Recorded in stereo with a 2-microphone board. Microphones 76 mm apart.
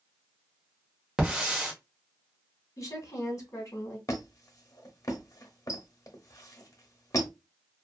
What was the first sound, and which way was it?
A hiss, 10° right (ahead or behind).